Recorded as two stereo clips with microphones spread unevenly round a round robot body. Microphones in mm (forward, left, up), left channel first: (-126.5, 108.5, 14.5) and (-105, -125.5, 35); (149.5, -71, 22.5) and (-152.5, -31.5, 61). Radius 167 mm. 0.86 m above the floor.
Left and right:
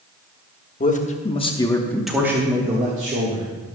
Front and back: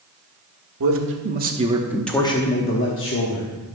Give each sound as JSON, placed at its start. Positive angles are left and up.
{"t": 0.8, "sound": "a man speaking", "azimuth_deg": 135, "distance_m": 1.4}